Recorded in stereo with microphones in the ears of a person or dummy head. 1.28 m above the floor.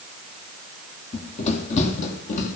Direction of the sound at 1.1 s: 30° left (ahead or behind).